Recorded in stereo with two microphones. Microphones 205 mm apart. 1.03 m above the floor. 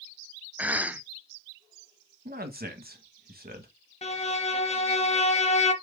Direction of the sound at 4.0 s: 35° left (ahead or behind).